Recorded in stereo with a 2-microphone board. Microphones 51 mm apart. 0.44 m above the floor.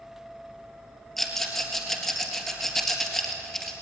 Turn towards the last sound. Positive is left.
turn(degrees=5)  # may be behind; listen again after turning